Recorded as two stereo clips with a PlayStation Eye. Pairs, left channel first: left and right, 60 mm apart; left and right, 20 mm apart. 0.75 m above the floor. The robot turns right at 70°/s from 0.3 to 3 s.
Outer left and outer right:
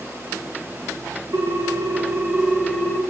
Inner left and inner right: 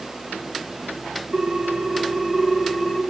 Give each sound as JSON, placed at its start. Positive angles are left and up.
{"t": 1.3, "sound": "a ringtone", "azimuth_deg": -90, "distance_m": 1.2}